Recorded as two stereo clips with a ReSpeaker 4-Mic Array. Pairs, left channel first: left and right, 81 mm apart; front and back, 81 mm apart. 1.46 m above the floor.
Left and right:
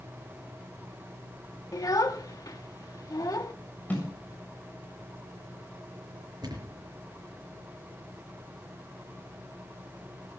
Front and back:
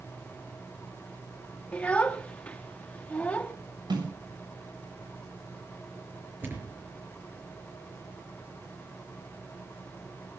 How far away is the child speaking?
About 1.3 m.